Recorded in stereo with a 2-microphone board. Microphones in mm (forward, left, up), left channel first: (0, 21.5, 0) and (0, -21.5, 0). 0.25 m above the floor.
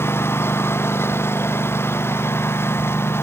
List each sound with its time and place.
0.0 s a lawn mower: 70° left (ahead or behind)